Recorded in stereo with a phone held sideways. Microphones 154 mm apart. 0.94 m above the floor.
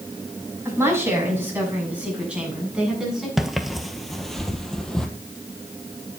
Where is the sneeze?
No sneeze in this recording.